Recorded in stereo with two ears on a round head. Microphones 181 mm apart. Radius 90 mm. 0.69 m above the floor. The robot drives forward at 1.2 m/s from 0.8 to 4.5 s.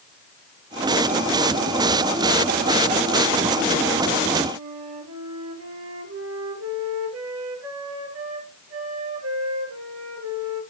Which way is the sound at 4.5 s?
75° right (ahead or behind).